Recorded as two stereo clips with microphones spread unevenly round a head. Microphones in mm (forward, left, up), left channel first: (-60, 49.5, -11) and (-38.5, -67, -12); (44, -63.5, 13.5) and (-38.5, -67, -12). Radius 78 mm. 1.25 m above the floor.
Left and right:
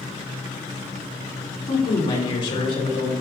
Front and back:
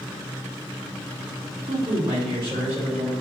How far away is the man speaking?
About 3 m.